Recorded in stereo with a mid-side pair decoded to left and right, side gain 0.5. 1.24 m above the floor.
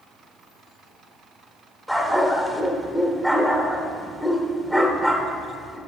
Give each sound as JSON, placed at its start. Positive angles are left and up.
{"t": 1.9, "sound": "a dog barking", "azimuth_deg": 5, "distance_m": 2.0}